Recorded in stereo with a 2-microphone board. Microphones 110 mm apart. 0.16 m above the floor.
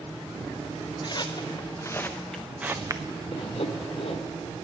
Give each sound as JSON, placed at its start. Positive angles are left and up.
{"t": 1.0, "sound": "footsteps", "side_deg": 45, "distance_m": 1.8}
{"t": 3.3, "sound": "sawing", "side_deg": 60, "distance_m": 1.9}